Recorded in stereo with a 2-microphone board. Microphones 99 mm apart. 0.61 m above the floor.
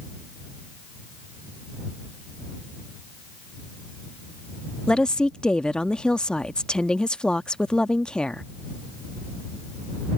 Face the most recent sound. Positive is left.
turn(degrees=10)  # may be behind; listen again after turning